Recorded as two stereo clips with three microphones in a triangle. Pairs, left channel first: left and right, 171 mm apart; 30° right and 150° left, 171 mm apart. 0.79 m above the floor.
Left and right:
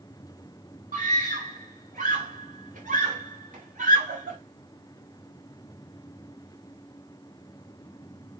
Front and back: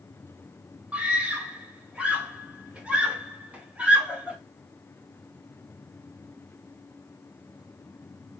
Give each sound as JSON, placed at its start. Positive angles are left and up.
{"t": 0.9, "sound": "a scream", "azimuth_deg": -125, "distance_m": 3.5}